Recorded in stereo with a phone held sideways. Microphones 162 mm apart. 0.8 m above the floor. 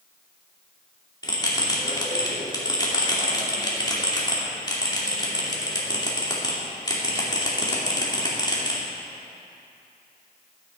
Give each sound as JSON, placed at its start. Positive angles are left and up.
{"t": 1.2, "sound": "a bell", "side_deg": 25, "distance_m": 2.5}